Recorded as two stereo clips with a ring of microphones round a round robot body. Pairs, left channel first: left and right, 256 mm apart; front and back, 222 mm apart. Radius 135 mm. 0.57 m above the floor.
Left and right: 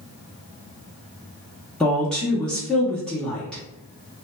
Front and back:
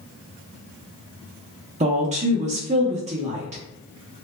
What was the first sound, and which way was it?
A woman speaking, 175° left.